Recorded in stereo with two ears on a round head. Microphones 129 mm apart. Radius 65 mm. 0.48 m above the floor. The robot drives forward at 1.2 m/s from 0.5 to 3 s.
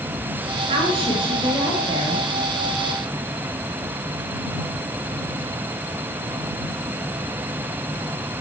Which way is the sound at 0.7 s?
45° right (ahead or behind).